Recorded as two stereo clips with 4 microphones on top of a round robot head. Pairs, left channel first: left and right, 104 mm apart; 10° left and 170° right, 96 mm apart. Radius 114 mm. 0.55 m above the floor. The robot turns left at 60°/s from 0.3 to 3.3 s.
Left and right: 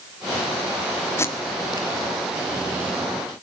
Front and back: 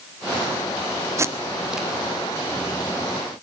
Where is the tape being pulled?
145° left, 1.7 m; by 1.9 s 105° left, 1.7 m.